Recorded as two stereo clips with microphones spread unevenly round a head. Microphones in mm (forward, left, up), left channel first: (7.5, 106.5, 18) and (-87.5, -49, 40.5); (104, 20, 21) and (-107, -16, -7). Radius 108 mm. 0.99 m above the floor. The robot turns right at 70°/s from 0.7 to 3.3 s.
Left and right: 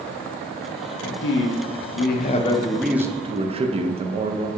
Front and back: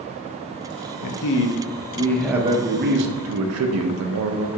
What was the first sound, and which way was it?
A man speaking, 20° left.